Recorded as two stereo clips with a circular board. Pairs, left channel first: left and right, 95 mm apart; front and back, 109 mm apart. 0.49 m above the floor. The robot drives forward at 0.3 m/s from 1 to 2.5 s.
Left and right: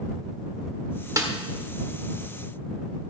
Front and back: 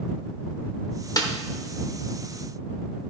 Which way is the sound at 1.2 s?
45° right.